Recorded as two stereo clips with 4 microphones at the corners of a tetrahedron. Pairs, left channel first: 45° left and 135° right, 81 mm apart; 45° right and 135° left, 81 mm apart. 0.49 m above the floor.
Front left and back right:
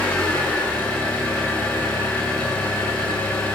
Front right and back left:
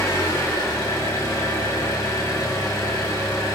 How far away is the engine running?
About 1.6 m.